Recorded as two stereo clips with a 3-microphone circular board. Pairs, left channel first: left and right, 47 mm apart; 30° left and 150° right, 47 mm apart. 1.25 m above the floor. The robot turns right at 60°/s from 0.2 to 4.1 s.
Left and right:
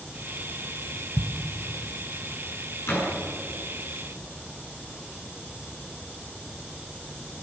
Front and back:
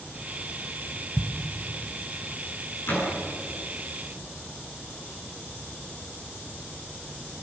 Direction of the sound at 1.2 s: 95° right.